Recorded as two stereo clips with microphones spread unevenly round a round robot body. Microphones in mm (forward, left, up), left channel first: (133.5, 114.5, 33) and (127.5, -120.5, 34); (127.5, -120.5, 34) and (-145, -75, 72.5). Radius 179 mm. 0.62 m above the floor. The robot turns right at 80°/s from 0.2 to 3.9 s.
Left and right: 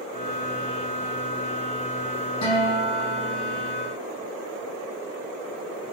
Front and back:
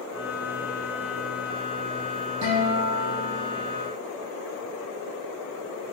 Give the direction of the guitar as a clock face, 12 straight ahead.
8 o'clock.